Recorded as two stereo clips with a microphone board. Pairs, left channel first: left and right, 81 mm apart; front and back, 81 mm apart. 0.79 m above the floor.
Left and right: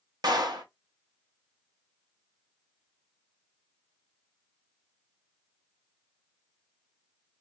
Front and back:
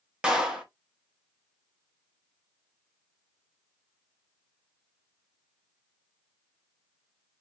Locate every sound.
0.2 s a clap: 105° right, 0.8 m